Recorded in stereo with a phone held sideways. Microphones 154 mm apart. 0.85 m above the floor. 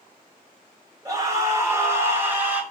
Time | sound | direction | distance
1.1 | a scream | 25° right (ahead or behind) | 4.5 m